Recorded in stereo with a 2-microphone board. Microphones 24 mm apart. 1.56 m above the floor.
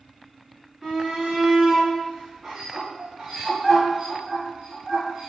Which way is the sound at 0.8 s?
10° right (ahead or behind).